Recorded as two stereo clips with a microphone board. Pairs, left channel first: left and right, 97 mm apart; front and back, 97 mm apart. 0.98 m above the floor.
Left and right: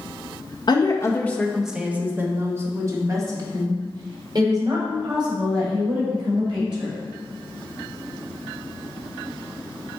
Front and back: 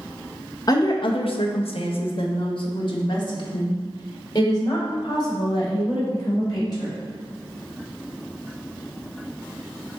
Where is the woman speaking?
50° left, 0.8 m; by 7.0 s 50° right, 5 m.